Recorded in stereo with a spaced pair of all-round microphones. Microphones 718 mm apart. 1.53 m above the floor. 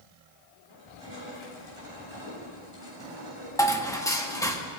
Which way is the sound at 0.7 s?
35° left (ahead or behind).